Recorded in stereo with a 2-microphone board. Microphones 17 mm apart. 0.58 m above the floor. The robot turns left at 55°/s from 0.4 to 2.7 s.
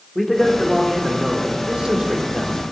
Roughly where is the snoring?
I don't hear snoring.